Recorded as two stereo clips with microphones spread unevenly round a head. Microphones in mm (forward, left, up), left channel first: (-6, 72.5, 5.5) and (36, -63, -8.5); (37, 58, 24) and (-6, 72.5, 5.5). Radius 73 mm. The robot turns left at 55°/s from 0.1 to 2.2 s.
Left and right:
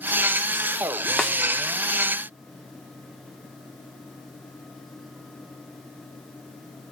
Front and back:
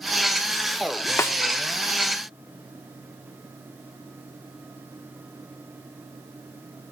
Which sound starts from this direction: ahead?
A snare drum, at 1.2 s.